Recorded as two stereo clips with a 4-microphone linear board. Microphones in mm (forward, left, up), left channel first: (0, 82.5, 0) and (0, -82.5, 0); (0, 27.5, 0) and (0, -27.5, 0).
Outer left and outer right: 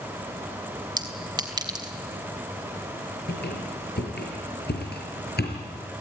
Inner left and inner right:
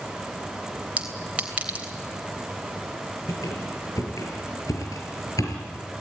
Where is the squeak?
80° left, 6 m.